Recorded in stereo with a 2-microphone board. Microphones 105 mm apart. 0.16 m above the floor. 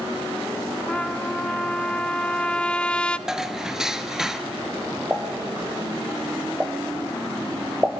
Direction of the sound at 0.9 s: 10° left (ahead or behind).